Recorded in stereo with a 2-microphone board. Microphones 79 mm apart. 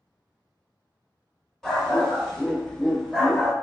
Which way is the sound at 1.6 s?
5° left (ahead or behind).